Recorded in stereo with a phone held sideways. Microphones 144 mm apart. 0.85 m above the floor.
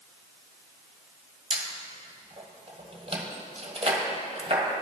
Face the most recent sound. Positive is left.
turn(degrees=-45)  # may be behind; listen again after turning